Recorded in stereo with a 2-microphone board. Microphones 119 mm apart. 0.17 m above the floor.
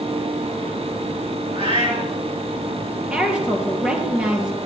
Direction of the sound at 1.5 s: 55° right (ahead or behind).